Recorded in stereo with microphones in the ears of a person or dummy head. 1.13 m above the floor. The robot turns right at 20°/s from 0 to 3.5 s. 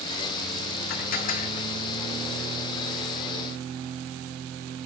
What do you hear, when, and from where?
0.9 s dishes clattering: 60° left (ahead or behind), 1.5 m; by 1.7 s 45° left (ahead or behind), 1.5 m